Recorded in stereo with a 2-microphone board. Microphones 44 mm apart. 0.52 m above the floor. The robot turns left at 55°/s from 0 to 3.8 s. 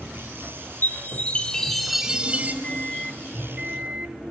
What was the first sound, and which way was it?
A chime, 55° left.